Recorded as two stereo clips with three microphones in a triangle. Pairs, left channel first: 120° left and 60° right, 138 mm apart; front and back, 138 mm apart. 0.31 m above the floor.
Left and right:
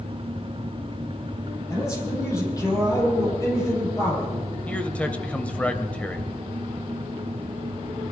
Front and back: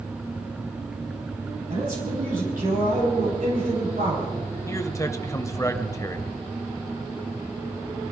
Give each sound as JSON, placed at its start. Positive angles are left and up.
{"t": 1.7, "sound": "a man speaking", "azimuth_deg": -175, "distance_m": 9.5}
{"t": 4.7, "sound": "a man speaking", "azimuth_deg": 45, "distance_m": 1.2}